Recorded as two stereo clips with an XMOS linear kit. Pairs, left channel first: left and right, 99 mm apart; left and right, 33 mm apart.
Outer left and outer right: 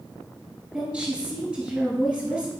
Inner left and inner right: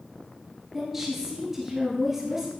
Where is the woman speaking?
10° right (ahead or behind), 1.6 m.